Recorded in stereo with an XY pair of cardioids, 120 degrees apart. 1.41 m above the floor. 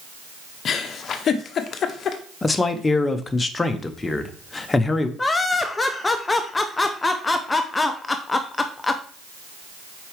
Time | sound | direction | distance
0.7 | a giggle | 50° left | 0.8 m
2.4 | a man speaking | 20° left | 0.8 m
5.2 | laughter | 20° left | 0.5 m